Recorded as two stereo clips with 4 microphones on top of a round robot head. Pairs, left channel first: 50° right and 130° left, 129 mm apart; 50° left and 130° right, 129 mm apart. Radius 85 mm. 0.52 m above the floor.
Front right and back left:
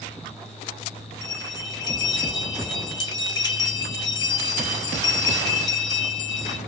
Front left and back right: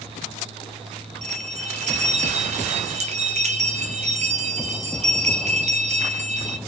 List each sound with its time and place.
1.2 s a bell: 105° right, 0.6 m